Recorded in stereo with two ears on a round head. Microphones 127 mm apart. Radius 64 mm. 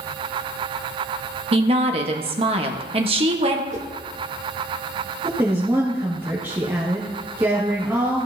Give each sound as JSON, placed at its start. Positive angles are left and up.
{"t": 1.5, "sound": "a woman speaking", "side_deg": -40, "distance_m": 1.1}
{"t": 3.7, "sound": "a whoosh", "side_deg": -55, "distance_m": 1.0}
{"t": 5.2, "sound": "a woman speaking", "side_deg": -15, "distance_m": 1.8}